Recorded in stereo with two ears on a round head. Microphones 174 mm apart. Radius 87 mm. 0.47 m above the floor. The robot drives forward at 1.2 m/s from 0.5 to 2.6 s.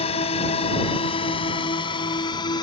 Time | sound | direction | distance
0.0 | a drone | 35° left (ahead or behind) | ?